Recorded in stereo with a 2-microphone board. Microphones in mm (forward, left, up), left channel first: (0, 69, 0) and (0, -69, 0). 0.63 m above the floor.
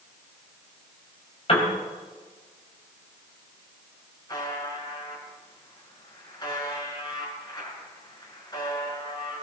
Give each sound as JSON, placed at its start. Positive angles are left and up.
{"t": 1.5, "sound": "a piano", "side_deg": 45, "distance_m": 4.0}
{"t": 4.3, "sound": "a buzzer", "side_deg": 30, "distance_m": 6.0}